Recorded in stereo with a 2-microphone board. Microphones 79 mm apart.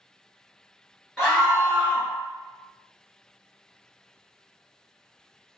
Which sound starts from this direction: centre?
A scream, at 1.2 s.